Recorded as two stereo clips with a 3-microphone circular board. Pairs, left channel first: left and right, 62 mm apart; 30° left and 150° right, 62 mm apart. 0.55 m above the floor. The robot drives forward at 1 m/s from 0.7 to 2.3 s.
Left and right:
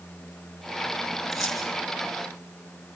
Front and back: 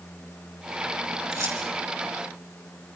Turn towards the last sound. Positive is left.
turn(degrees=180)